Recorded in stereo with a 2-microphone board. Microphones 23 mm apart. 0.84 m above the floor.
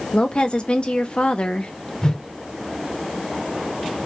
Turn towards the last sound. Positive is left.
turn(degrees=30)  # may be behind; listen again after turning